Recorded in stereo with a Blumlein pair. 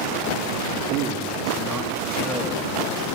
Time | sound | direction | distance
0.9 | a man speaking | 35° right | 2.5 m